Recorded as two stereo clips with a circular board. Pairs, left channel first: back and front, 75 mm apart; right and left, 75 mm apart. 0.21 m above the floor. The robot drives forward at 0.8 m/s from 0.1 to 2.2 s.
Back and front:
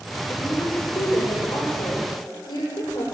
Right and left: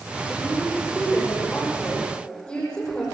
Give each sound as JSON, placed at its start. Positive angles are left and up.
{"t": 0.3, "sound": "a woman speaking", "azimuth_deg": -165, "distance_m": 8.5}